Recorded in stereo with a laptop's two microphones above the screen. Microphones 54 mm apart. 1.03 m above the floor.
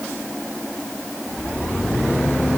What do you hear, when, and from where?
Only background noise.